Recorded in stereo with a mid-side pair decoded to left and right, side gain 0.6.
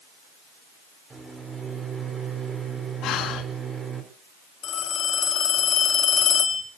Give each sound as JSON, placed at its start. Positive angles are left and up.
{"t": 1.1, "sound": "a microwave", "azimuth_deg": -25, "distance_m": 5.5}
{"t": 3.0, "sound": "breathing", "azimuth_deg": 60, "distance_m": 2.5}
{"t": 4.6, "sound": "a phone ringing", "azimuth_deg": 45, "distance_m": 5.0}